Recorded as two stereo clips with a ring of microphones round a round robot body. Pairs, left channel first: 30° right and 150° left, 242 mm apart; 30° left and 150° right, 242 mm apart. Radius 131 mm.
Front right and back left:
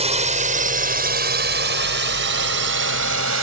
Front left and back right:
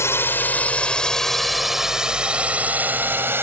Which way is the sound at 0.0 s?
105° left.